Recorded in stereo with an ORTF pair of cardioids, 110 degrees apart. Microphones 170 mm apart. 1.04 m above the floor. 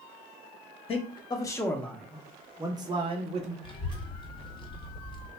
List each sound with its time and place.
0.9 s a man speaking: 35° left, 1.0 m; by 3.5 s 40° right, 1.1 m
3.6 s a child speaking: 30° left, 1.2 m